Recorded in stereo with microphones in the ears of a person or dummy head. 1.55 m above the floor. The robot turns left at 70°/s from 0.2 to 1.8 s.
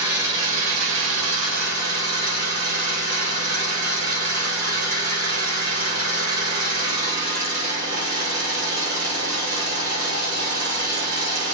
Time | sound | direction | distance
0.0 | an engine running | 15° right | 2.5 m